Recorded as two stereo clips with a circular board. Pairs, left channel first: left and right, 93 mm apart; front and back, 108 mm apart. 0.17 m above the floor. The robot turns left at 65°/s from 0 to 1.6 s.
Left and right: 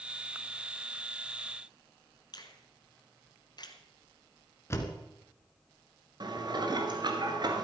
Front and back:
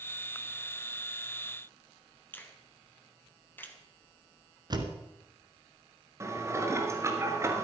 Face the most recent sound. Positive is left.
turn(degrees=-120)